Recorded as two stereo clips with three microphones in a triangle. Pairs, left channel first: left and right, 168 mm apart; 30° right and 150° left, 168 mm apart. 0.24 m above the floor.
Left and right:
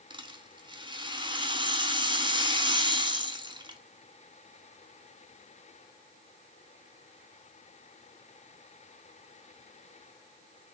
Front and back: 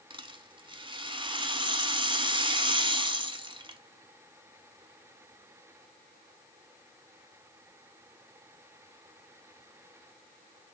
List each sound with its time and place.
0.1 s a rattle: 150° right, 1.0 m